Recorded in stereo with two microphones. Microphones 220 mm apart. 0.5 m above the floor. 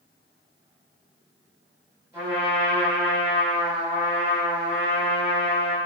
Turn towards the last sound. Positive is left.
turn(degrees=-10)  # may be behind; listen again after turning